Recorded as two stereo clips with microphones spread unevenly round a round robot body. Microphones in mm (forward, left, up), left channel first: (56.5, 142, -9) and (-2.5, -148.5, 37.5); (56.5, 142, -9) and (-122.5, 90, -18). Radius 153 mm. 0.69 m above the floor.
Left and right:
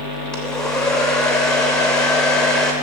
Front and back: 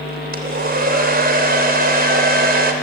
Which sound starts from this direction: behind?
A hair dryer, at 0.3 s.